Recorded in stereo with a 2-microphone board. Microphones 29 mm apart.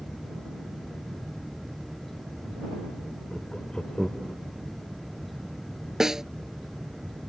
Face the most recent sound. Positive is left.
turn(degrees=-15)  # may be behind; listen again after turning